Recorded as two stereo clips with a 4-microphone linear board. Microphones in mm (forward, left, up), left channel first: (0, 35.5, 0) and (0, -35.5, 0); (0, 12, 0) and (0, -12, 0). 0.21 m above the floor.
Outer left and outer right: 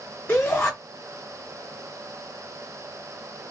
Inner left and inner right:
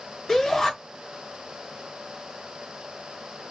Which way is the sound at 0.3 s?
25° left (ahead or behind).